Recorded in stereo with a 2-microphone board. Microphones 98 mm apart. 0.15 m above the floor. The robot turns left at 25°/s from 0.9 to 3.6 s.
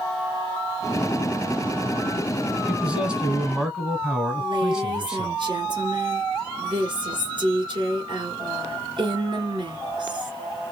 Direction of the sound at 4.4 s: 55° right (ahead or behind).